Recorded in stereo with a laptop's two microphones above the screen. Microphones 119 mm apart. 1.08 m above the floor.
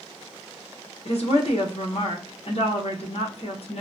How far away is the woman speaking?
About 0.8 m.